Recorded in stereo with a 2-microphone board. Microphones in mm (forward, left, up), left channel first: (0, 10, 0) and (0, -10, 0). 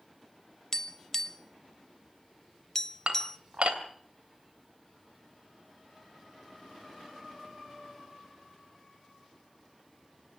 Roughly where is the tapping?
Left.